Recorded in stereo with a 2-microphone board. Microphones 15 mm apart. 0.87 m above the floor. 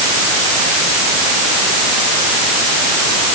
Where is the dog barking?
No dog barking in this recording.